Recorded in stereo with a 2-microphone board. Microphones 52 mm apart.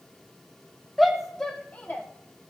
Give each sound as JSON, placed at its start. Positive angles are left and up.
{"t": 1.0, "sound": "a shout", "side_deg": 0, "distance_m": 0.8}